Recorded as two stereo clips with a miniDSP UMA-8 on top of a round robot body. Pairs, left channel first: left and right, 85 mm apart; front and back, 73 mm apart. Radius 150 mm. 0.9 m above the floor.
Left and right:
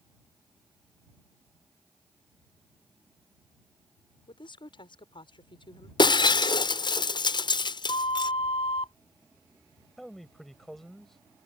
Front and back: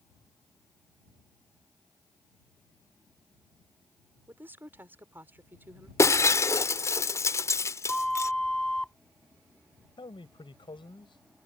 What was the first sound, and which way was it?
A woman speaking, 115° left.